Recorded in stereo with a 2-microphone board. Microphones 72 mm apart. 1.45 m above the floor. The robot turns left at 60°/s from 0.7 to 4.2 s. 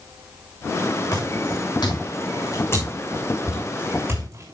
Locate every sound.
1.1 s footsteps: 55° left (ahead or behind), 7.5 m; by 4.5 s 45° right (ahead or behind), 8 m